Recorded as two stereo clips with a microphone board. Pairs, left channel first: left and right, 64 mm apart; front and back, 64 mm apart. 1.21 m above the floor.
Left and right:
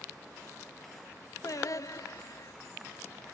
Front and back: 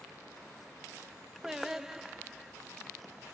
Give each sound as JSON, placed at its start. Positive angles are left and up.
{"t": 1.4, "sound": "singing", "azimuth_deg": 100, "distance_m": 0.7}